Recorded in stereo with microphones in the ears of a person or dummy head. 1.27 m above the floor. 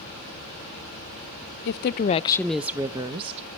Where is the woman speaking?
70° left (ahead or behind), 0.6 m; by 3.5 s 35° right (ahead or behind), 1.1 m.